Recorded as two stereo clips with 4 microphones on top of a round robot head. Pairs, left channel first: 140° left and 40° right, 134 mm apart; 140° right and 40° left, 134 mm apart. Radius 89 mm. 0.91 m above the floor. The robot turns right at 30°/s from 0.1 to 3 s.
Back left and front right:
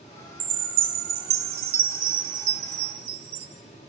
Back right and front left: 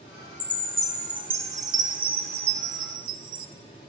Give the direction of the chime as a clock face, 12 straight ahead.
2 o'clock.